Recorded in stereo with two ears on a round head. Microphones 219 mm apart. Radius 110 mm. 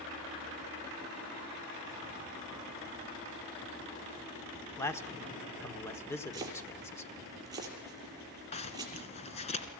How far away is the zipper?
About 2 m.